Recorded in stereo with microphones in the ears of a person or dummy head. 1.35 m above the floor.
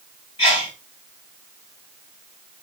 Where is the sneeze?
25° left (ahead or behind), 4 m.